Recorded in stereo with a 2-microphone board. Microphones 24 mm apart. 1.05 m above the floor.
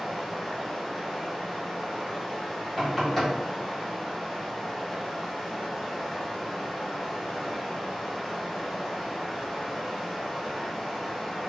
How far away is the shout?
I don't hear a shout.